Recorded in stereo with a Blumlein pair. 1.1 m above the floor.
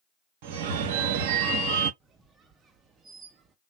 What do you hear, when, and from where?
0.4 s a phone ringing: 50° right, 0.6 m
2.0 s a squeak: 20° right, 0.5 m